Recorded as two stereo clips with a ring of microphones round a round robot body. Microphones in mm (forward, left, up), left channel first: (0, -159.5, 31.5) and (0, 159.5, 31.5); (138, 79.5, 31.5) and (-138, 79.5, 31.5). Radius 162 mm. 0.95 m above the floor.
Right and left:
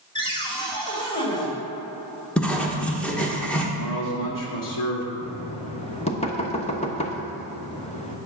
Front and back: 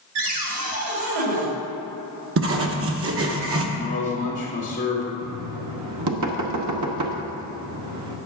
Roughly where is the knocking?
Behind.